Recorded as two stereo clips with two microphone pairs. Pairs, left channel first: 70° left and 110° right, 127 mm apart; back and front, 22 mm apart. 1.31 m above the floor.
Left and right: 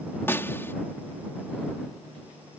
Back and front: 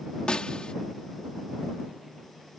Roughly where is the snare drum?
Behind left.